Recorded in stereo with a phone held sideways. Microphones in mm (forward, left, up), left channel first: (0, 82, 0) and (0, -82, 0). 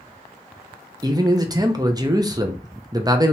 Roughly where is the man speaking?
Right.